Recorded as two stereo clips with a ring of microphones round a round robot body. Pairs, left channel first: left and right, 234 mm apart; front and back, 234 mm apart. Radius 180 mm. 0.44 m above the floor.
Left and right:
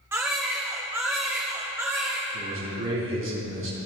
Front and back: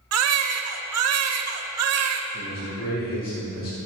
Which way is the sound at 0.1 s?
170° right.